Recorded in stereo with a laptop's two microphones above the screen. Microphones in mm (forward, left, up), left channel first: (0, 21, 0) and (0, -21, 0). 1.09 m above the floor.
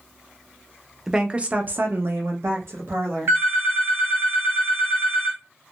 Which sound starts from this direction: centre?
A woman speaking, at 1.1 s.